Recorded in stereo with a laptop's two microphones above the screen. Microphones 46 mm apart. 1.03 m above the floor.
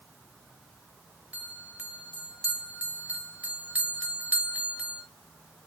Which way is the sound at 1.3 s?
30° right (ahead or behind).